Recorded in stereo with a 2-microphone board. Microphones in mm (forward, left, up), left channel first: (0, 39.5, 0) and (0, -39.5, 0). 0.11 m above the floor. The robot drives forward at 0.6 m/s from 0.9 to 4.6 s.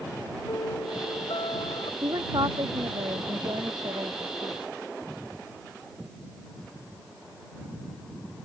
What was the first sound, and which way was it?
A piano, 75° left (ahead or behind).